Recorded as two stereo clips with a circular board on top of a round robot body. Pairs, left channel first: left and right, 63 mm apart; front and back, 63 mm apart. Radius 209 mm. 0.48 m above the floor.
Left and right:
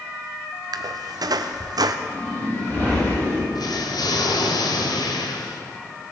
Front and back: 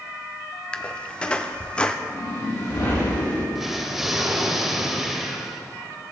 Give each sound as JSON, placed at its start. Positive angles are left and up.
{"t": 0.7, "sound": "a squeak", "azimuth_deg": -75, "distance_m": 0.6}
{"t": 2.1, "sound": "a whoosh", "azimuth_deg": 30, "distance_m": 6.5}
{"t": 3.5, "sound": "an explosion", "azimuth_deg": 95, "distance_m": 1.6}